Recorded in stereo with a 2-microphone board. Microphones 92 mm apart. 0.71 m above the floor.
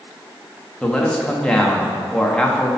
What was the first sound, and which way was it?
A man speaking, 10° left (ahead or behind).